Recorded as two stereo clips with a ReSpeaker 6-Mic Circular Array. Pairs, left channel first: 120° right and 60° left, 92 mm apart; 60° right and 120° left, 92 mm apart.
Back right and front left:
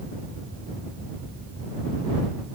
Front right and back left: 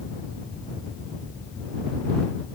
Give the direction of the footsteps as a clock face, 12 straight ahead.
I don't hear footsteps.